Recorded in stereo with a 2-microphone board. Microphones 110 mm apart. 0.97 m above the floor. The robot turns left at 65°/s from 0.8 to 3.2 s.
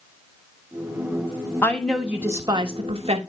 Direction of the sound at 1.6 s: 20° left.